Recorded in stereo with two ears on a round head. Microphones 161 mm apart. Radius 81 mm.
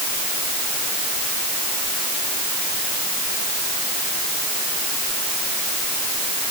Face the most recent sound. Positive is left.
No sound to turn to.